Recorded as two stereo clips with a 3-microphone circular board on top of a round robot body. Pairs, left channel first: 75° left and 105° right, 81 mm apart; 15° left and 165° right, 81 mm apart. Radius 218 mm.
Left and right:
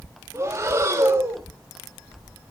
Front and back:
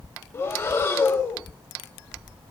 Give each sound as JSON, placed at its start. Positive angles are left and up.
{"t": 0.3, "sound": "breathing", "azimuth_deg": -45, "distance_m": 1.2}